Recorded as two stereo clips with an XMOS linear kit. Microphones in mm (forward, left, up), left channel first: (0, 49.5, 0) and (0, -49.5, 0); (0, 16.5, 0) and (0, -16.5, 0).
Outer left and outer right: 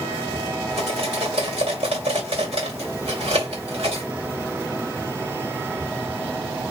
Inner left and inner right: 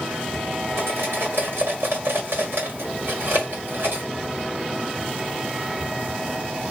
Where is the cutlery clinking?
70° right (ahead or behind), 1.8 m.